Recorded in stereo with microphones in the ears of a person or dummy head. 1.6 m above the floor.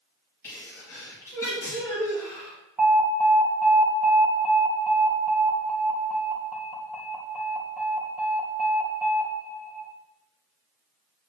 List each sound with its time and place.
0.4 s a sneeze: 15° left (ahead or behind), 3 m
2.8 s an alarm: 10° right (ahead or behind), 2 m